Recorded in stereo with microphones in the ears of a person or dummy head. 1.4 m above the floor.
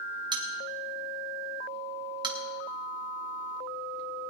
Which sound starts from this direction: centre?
A bell, at 0.3 s.